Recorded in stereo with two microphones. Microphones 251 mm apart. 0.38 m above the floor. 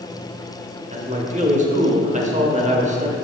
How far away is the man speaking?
About 0.9 m.